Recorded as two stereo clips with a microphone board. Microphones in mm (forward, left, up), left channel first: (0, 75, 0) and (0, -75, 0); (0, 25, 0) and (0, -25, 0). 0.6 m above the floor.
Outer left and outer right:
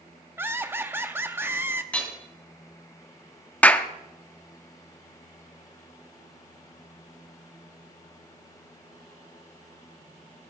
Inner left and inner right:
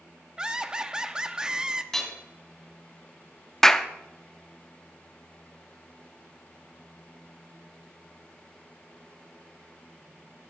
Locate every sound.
0.4 s laughter: 15° right (ahead or behind), 0.8 m
1.9 s hammering: 10° left (ahead or behind), 2.5 m
3.6 s a clap: 10° left (ahead or behind), 0.6 m